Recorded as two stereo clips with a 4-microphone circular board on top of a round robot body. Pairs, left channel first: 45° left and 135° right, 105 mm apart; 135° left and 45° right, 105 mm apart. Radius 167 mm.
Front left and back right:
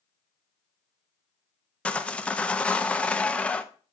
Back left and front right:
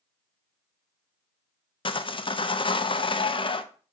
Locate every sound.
1.9 s sawing: 120° left, 0.7 m